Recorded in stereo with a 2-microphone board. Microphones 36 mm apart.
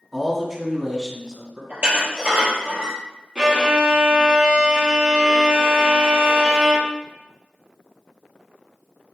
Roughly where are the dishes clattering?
Right.